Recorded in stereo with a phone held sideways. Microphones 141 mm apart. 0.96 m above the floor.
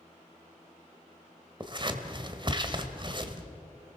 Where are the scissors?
35° right (ahead or behind), 1.4 m.